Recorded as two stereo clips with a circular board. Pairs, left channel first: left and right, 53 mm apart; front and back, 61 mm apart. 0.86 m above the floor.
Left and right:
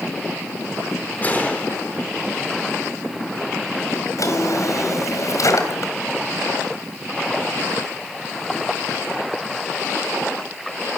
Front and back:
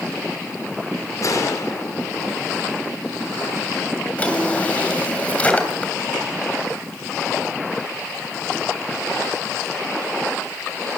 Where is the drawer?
70° left, 3 m.